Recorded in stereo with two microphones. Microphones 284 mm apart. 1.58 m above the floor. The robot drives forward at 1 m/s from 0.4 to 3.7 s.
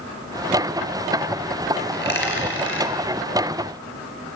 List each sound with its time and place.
1.9 s a dropped coin: 35° left (ahead or behind), 4 m; by 2.9 s 45° left (ahead or behind), 3.5 m